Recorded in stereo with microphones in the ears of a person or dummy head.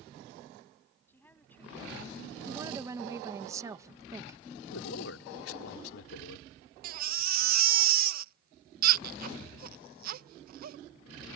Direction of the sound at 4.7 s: 85° left.